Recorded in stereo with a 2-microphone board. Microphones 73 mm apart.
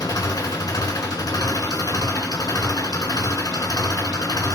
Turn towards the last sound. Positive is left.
turn(degrees=60)  # may be behind; listen again after turning